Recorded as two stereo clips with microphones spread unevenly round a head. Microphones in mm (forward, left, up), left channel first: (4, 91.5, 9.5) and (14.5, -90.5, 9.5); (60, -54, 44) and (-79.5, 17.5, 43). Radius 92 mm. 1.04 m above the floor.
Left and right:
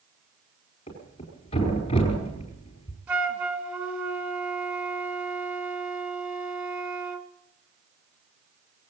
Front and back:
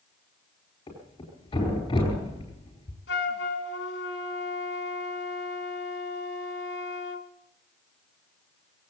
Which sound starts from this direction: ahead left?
A thud, at 0.9 s.